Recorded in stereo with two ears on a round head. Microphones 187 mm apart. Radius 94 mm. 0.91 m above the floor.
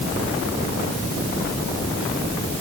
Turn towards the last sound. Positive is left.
No sound to turn to.